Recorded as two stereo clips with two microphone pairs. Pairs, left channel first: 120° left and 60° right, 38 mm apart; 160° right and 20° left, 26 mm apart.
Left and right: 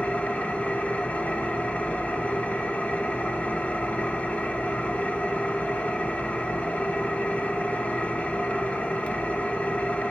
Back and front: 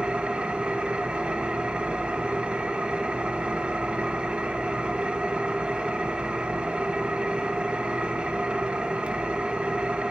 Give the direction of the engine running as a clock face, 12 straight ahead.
10 o'clock.